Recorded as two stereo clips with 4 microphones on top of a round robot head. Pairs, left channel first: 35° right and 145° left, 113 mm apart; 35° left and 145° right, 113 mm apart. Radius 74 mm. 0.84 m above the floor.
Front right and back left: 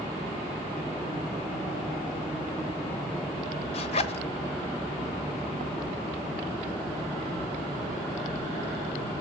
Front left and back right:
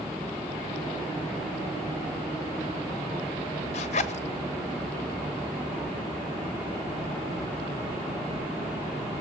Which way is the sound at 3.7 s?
5° left.